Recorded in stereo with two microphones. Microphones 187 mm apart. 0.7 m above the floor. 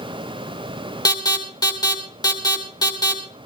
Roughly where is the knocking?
No knocking in this recording.